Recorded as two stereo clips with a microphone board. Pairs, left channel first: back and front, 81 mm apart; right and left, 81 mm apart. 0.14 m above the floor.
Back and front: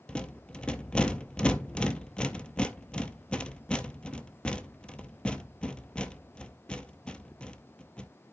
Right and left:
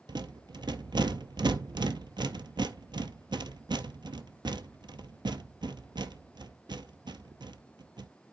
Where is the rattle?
105° left, 0.6 m.